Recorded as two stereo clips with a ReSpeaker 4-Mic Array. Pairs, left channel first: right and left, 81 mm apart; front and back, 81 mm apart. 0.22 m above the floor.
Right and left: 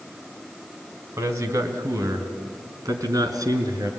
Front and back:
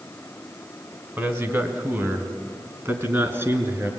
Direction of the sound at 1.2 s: 130° left.